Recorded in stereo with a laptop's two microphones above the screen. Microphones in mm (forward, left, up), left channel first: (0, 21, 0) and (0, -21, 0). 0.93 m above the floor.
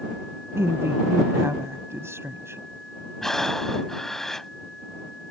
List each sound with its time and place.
0.6 s a woman speaking: 85° right
3.2 s breathing: 10° left (ahead or behind)